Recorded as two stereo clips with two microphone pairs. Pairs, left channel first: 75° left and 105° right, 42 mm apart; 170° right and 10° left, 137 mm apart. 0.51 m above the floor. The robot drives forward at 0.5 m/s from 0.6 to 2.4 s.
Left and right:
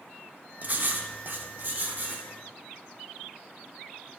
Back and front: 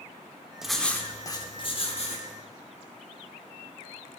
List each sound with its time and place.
0.6 s writing: 75° right, 0.6 m; by 2.3 s 150° right, 0.9 m